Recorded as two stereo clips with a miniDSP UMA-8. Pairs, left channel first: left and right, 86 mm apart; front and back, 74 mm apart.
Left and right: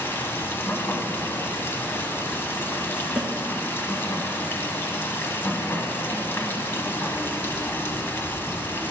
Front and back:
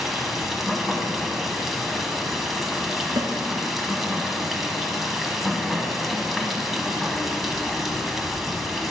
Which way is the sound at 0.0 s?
95° left.